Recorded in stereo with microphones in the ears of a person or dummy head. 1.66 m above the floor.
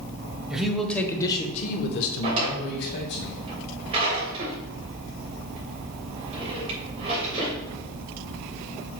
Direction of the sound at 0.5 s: 5° right (ahead or behind).